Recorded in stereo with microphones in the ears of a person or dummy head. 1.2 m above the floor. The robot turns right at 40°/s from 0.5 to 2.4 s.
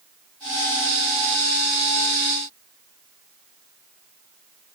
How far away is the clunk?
No clunk in this recording.